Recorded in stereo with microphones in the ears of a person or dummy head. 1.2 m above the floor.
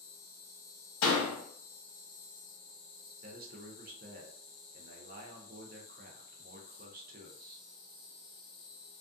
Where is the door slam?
75° left (ahead or behind), 0.9 m.